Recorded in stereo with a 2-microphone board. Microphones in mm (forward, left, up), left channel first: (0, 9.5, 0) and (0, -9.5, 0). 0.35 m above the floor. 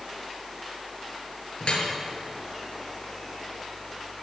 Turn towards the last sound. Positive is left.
turn(degrees=70)  # may be behind; listen again after turning